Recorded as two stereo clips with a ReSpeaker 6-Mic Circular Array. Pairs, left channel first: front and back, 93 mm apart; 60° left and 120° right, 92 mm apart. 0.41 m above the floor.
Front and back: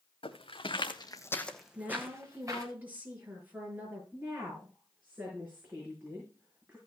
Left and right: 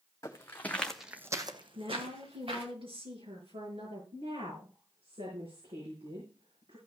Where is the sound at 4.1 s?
110° right, 5.5 m.